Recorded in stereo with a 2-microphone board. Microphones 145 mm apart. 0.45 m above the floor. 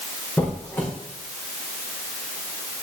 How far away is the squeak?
About 7 m.